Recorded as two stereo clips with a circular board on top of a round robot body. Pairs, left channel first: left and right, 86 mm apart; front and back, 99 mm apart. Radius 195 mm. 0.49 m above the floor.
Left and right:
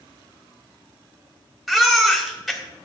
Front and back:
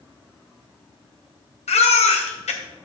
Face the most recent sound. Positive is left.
turn(degrees=0)